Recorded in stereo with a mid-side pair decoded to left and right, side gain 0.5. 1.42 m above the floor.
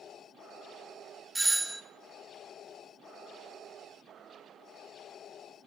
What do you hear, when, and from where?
1.4 s a doorbell: 15° right, 0.7 m